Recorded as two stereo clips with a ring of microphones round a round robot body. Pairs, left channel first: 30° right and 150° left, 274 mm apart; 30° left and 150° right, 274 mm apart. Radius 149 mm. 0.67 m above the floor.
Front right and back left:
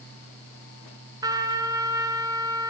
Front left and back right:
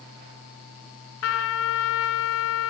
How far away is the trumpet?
About 2 m.